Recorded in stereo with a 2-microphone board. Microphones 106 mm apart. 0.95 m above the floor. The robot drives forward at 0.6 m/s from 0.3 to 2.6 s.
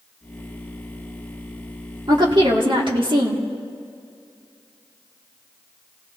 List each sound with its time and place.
2.1 s a woman speaking: 45° right (ahead or behind), 2.5 m; by 3.4 s 50° right (ahead or behind), 2 m